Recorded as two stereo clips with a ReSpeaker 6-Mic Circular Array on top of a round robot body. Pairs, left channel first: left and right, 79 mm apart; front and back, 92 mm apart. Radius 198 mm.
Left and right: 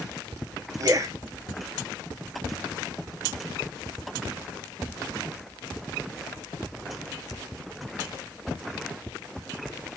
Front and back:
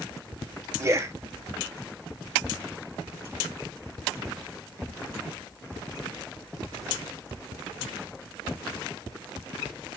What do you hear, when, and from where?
0.8 s a man speaking: 125° right, 0.9 m